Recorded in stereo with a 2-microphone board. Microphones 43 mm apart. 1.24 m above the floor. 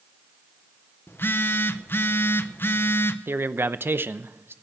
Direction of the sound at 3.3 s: 60° right (ahead or behind).